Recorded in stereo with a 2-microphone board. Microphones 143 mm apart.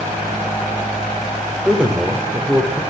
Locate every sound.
1.6 s a man speaking: 10° right (ahead or behind), 0.8 m